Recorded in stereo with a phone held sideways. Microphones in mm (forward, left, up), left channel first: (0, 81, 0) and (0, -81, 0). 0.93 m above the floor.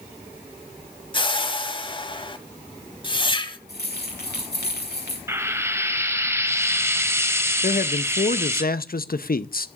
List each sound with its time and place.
1.1 s a whoosh: 30° left (ahead or behind), 1.2 m
3.7 s keys jangling: 85° left, 6 m
5.3 s frying: 15° right (ahead or behind), 1.4 m
7.6 s a man speaking: 65° left (ahead or behind), 0.7 m